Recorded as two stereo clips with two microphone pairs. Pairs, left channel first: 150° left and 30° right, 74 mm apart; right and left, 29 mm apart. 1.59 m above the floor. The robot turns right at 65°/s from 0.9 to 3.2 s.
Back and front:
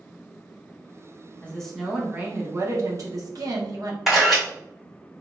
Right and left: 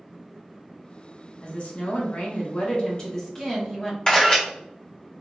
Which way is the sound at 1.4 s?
135° right.